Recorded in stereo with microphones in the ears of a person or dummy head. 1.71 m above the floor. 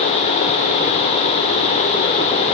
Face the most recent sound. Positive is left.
No sound to turn to.